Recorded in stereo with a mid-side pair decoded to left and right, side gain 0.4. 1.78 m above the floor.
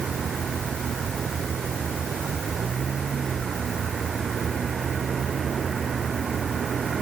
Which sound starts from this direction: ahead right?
A vehicle, at 0.0 s.